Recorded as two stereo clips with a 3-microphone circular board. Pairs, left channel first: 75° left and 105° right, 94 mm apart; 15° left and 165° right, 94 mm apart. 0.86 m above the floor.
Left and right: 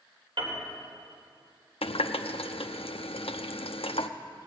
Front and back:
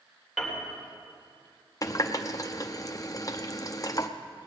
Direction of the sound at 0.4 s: 75° right.